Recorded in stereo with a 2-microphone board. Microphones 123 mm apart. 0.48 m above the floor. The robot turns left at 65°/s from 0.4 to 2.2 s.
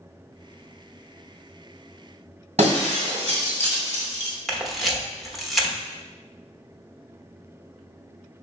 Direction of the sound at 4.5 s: Centre (ahead or behind).